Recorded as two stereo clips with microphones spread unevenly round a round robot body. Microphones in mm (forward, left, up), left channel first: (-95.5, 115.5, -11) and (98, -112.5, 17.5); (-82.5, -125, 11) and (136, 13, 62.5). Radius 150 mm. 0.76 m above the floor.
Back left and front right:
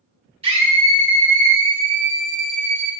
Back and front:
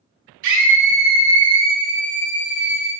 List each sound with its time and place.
0.4 s a scream: 25° left, 2.5 m; by 2.9 s 25° right, 3.5 m